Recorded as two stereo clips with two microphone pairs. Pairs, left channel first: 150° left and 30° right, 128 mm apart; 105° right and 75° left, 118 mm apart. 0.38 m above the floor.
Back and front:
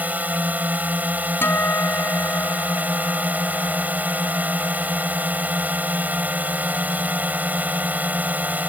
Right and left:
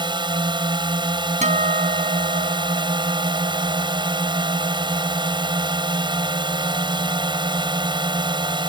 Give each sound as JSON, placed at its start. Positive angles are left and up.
{"t": 0.0, "sound": "a drone", "azimuth_deg": 40}
{"t": 1.4, "sound": "a guitar", "azimuth_deg": 75}